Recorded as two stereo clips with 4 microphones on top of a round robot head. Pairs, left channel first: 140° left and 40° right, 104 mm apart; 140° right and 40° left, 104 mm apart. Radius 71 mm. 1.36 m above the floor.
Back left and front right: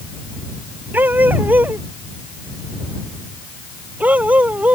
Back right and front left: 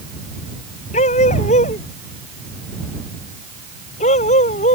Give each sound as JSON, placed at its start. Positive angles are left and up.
{"t": 0.9, "sound": "a dog barking", "azimuth_deg": -115}